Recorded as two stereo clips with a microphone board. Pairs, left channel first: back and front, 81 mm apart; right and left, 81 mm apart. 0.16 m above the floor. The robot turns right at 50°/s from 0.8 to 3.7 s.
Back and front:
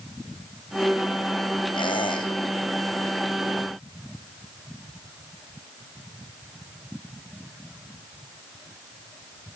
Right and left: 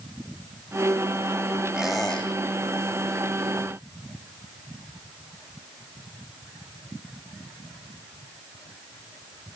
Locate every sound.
1.7 s a squeak: 170° left, 3.5 m; by 2.3 s 165° right, 3.5 m